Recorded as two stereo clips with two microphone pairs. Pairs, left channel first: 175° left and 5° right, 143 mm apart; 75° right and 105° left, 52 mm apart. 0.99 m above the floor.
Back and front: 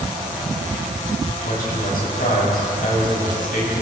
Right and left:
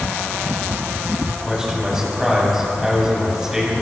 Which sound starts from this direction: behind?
A man speaking, at 1.4 s.